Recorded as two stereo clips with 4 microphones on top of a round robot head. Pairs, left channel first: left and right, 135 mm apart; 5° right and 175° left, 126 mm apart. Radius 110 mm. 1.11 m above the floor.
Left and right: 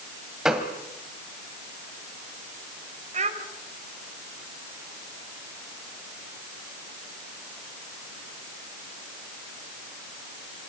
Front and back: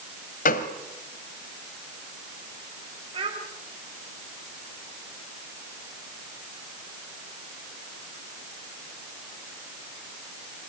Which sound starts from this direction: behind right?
A child speaking, at 3.1 s.